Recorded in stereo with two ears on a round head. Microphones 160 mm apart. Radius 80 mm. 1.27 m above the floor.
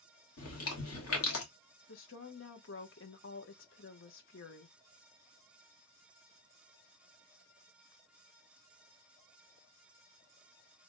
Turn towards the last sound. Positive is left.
turn(degrees=70)  # may be behind; listen again after turning